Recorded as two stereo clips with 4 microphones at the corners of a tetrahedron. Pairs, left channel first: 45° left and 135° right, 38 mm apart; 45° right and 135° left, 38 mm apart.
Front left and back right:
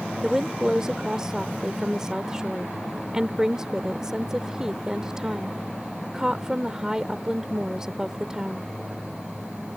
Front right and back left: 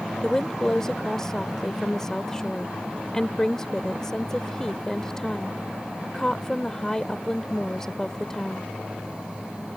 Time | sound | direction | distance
0.2 | a woman speaking | 90° right | ?